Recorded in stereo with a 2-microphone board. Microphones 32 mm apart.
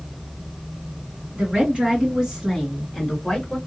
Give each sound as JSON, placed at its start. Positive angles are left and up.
{"t": 1.3, "sound": "a woman speaking", "side_deg": -40, "distance_m": 1.8}